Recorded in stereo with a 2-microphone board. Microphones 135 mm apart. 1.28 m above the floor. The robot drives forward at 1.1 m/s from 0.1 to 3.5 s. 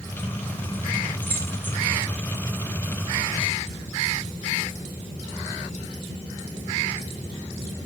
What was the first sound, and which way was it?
Keys jangling, 15° left (ahead or behind).